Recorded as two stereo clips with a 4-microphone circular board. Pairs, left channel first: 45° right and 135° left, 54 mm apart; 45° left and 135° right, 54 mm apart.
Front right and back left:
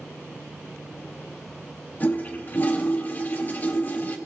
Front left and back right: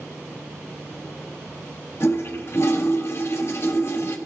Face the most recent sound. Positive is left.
turn(degrees=10)